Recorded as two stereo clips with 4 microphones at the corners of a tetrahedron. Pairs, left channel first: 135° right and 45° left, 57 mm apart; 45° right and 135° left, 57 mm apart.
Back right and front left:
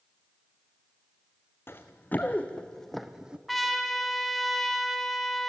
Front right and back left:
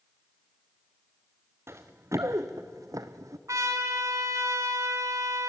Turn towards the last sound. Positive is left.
turn(degrees=135)